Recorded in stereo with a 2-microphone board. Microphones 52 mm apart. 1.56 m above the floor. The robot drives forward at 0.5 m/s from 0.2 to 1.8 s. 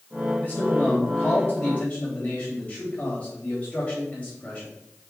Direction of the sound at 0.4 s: 30° left (ahead or behind).